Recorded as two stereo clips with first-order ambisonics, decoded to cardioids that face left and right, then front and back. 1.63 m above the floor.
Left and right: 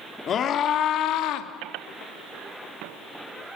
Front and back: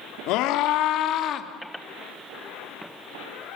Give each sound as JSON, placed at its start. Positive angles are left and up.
{"t": 0.3, "sound": "a scream", "azimuth_deg": 30, "distance_m": 3.0}